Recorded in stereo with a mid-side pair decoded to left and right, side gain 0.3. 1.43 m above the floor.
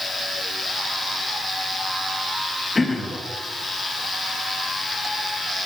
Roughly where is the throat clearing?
Ahead left.